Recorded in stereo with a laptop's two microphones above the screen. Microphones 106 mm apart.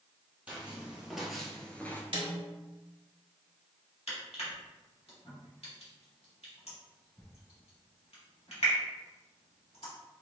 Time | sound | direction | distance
0.5 | footsteps | 15° right (ahead or behind) | 1.7 m
2.1 | a snare drum | 55° right (ahead or behind) | 1.5 m
4.1 | crushing | 80° left | 2 m